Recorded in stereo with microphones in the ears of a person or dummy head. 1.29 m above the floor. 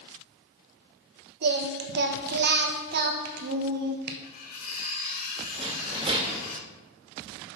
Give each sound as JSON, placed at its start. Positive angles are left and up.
{"t": 1.4, "sound": "singing", "side_deg": -55, "distance_m": 1.0}
{"t": 4.2, "sound": "cutlery clinking", "side_deg": 55, "distance_m": 1.9}
{"t": 5.6, "sound": "a rattle", "side_deg": -30, "distance_m": 2.0}